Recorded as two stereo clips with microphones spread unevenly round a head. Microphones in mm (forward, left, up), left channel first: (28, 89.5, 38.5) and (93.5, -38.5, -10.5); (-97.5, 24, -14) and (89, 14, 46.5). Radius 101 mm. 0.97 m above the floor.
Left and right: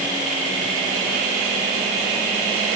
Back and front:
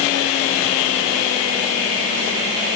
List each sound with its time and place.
Only background noise.